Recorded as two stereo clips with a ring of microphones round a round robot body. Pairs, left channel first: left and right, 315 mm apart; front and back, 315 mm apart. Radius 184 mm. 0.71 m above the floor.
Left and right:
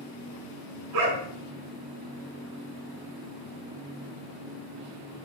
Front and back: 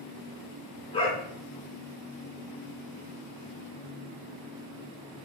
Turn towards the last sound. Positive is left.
turn(degrees=-75)